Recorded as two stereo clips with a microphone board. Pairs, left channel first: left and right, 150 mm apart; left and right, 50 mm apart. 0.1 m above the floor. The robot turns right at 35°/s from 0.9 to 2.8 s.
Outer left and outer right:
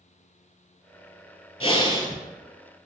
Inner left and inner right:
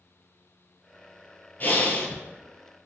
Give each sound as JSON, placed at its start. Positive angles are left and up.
{"t": 1.6, "sound": "breathing", "side_deg": 40, "distance_m": 0.6}